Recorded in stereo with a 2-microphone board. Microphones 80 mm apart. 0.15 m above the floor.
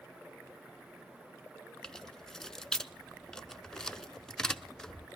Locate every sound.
1.8 s keys jangling: 5° left (ahead or behind), 0.9 m